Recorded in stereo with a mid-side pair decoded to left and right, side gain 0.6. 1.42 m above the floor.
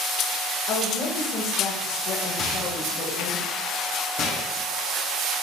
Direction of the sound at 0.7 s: 65° left.